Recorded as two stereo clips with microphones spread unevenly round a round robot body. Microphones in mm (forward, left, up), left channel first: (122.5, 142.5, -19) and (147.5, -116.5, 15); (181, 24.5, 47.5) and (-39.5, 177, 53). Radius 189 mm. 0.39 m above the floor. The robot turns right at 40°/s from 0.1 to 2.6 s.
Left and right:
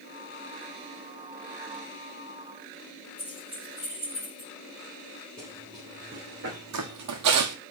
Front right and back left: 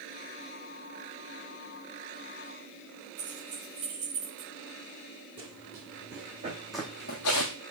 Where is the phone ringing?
No phone ringing in this recording.